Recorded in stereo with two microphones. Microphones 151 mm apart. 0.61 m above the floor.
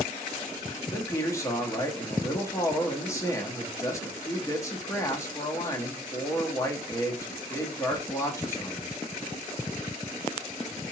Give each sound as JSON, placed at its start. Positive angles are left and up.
{"t": 0.9, "sound": "a man speaking", "side_deg": 20, "distance_m": 0.8}